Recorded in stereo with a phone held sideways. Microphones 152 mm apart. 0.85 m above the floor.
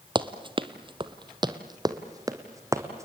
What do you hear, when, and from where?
0.1 s running footsteps: 35° right (ahead or behind), 1.0 m; by 3.1 s 20° right (ahead or behind), 2 m